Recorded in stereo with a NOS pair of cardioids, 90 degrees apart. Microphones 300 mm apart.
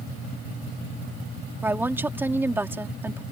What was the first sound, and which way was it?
A woman speaking, 5° right.